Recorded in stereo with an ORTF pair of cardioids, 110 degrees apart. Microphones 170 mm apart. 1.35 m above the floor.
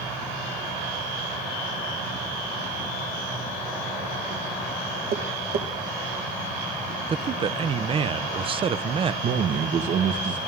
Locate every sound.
5.1 s tapping: 60° right, 1.3 m
7.1 s a man speaking: 30° right, 0.6 m
9.2 s a man speaking: 55° right, 1.1 m